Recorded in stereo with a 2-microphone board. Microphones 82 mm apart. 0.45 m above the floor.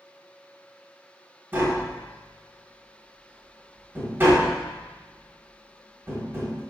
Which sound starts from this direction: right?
Tapping, at 1.5 s.